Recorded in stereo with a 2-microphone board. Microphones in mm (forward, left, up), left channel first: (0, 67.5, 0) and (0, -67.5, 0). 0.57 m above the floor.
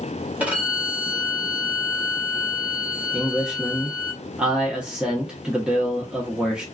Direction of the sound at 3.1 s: 5° right (ahead or behind).